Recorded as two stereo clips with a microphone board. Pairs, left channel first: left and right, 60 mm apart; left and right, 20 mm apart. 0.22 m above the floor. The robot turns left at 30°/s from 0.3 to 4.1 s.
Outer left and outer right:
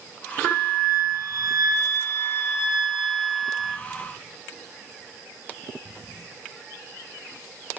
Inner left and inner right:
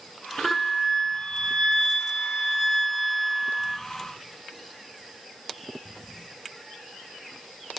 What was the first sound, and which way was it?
A flute, 100° left.